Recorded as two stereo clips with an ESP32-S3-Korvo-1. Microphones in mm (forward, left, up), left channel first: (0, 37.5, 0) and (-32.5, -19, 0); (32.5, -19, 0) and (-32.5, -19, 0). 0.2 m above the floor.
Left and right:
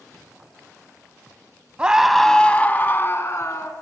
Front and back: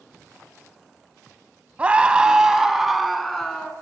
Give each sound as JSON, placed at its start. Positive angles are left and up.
{"t": 1.8, "sound": "a scream", "azimuth_deg": -160, "distance_m": 1.0}